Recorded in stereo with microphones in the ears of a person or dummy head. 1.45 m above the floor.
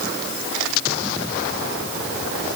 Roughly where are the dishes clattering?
No dishes clattering in this recording.